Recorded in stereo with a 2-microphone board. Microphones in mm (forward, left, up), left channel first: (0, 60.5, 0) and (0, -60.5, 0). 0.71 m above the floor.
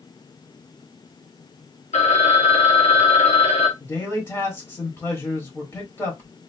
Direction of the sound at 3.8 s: 20° left (ahead or behind).